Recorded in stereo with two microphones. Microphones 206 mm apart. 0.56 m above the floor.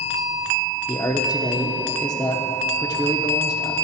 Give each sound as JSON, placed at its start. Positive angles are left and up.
{"t": 0.9, "sound": "a man speaking", "side_deg": 20, "distance_m": 0.9}